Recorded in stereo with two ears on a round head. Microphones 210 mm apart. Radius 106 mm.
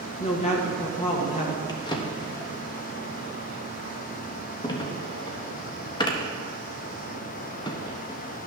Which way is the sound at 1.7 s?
20° left (ahead or behind).